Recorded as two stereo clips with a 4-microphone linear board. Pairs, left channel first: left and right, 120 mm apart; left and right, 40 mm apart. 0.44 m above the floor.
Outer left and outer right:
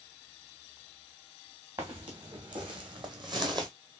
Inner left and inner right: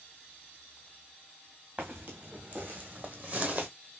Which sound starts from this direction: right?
Footsteps, at 1.8 s.